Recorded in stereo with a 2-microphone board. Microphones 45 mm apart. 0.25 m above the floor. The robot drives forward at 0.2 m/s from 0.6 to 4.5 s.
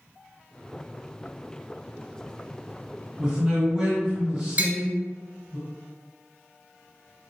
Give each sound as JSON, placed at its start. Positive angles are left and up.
{"t": 3.2, "sound": "a man speaking", "side_deg": -20, "distance_m": 1.0}
{"t": 4.6, "sound": "tapping", "side_deg": -40, "distance_m": 0.6}